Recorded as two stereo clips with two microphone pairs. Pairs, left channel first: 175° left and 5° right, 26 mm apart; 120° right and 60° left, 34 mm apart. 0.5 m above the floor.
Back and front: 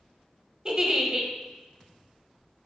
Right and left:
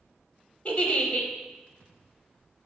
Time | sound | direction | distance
0.7 | a giggle | 65° right | 0.6 m